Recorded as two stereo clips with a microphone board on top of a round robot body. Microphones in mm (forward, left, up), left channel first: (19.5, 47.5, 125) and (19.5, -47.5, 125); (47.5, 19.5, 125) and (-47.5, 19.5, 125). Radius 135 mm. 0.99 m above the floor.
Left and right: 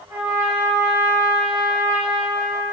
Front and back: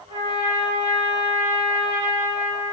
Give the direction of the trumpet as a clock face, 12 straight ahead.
5 o'clock.